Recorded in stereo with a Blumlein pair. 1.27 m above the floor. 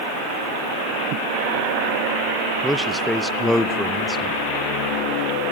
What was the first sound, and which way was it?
A man speaking, 5° left.